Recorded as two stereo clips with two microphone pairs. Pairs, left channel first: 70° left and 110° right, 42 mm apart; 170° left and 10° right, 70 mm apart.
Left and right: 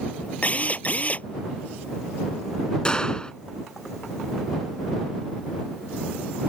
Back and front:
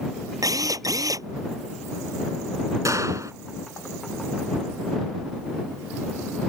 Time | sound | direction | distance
0.4 | a drill | 15° left | ?
2.9 | a gunshot | 5° left | ?